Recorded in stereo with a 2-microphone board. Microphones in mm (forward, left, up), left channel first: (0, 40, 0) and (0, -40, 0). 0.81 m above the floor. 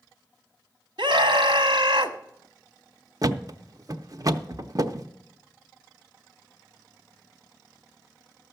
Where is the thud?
50° right (ahead or behind), 0.6 m.